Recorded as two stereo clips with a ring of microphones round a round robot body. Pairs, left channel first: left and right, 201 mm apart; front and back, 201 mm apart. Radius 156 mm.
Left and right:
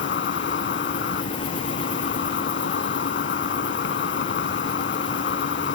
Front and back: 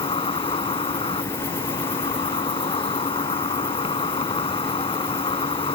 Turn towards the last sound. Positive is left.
turn(degrees=65)